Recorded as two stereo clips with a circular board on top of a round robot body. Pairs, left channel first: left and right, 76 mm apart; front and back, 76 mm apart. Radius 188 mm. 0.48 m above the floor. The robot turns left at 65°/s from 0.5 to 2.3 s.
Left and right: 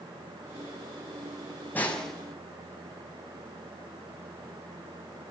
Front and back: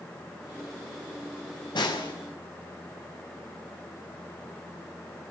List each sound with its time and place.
1.8 s a snare drum: 20° left, 6 m; by 2.1 s 5° right, 6 m